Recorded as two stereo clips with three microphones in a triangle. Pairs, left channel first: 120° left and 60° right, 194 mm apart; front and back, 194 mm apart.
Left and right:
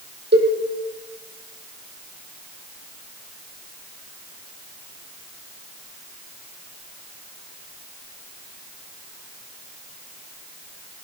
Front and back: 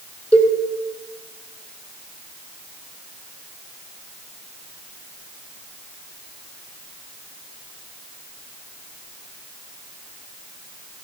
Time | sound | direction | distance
0.3 | a cowbell | 85° right | 3.5 m